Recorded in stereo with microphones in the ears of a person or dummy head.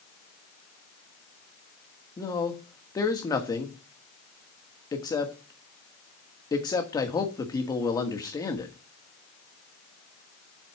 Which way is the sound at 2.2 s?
20° left (ahead or behind).